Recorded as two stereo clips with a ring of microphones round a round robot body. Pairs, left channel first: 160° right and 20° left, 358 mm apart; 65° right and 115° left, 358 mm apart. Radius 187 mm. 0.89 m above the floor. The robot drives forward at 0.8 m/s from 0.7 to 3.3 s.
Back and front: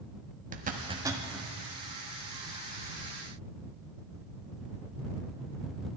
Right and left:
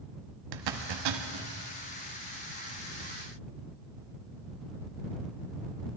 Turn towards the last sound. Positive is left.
turn(degrees=150)